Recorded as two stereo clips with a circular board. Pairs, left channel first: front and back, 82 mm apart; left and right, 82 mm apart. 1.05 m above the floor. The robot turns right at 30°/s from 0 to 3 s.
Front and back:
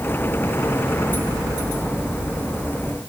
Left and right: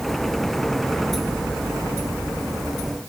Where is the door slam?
No door slam in this recording.